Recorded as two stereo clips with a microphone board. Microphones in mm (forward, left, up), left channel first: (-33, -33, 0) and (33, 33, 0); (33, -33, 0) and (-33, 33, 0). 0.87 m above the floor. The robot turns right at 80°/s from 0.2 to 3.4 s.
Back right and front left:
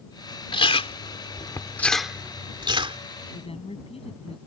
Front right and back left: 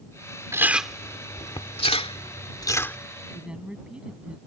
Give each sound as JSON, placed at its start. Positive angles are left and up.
{"t": 0.5, "sound": "chewing", "azimuth_deg": -165}
{"t": 3.3, "sound": "a woman speaking", "azimuth_deg": -150}